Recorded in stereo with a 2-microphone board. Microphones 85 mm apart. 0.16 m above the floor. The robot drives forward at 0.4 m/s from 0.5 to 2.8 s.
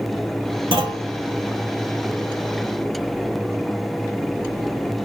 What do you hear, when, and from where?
0.7 s a clunk: 75° right (ahead or behind), 1.1 m; by 1.1 s 70° right (ahead or behind), 1.1 m